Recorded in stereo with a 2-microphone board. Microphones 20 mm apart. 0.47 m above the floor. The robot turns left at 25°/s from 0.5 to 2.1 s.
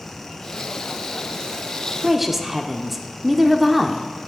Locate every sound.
2.0 s a woman speaking: 5° right (ahead or behind), 0.7 m